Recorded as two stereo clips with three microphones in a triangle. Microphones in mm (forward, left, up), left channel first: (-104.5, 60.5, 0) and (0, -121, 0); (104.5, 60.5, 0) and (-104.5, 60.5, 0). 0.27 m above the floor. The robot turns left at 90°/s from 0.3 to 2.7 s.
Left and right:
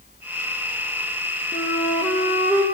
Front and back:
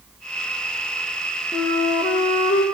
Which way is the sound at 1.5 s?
90° left.